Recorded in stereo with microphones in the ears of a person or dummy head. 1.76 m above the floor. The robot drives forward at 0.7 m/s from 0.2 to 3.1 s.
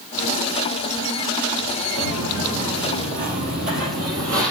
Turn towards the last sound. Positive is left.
turn(degrees=-50)  # may be behind; listen again after turning